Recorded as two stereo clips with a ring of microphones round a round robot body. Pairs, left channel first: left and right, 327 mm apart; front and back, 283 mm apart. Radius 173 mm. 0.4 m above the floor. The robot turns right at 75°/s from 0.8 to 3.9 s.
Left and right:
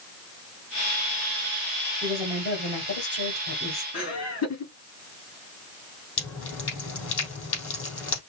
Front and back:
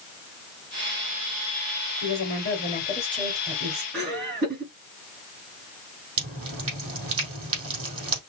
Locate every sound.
2.0 s a woman speaking: 5° left, 2.5 m; by 3.8 s 140° left, 2.5 m
3.9 s laughter: 130° left, 3.5 m
6.2 s dripping: 140° left, 3.5 m